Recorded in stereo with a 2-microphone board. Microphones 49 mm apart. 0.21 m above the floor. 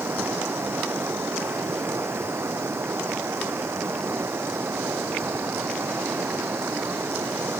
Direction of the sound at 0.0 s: 60° right (ahead or behind).